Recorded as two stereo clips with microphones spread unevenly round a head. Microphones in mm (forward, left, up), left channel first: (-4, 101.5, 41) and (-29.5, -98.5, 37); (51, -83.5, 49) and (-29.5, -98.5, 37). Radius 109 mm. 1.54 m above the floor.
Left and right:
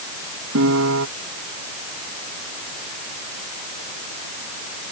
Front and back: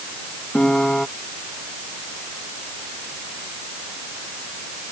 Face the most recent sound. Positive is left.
turn(degrees=-70)